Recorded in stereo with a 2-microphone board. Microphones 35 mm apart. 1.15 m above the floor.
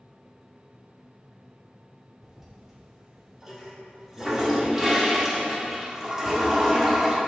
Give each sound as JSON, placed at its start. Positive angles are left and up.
{"t": 2.2, "sound": "a toilet flushing", "side_deg": -10, "distance_m": 1.1}